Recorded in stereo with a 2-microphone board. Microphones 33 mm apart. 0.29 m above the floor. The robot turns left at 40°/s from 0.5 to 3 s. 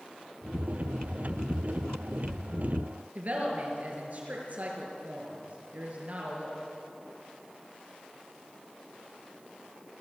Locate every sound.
3.1 s a woman speaking: 50° right (ahead or behind), 6 m